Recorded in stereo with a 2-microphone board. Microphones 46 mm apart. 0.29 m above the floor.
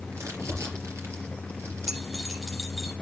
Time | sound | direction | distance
0.1 | crumpling | 70° right (ahead or behind) | 5 m
1.9 | keys jangling | 5° right (ahead or behind) | 7 m